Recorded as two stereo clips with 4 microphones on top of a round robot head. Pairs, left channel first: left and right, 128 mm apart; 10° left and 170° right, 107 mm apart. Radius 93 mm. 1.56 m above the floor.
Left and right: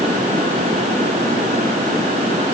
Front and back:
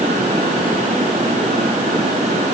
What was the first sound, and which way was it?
Only background noise.